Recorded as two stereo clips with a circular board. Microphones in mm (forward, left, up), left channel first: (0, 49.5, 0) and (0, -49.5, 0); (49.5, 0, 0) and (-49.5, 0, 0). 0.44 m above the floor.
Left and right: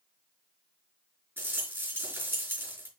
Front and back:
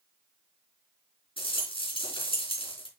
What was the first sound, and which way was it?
A rattle, 20° right.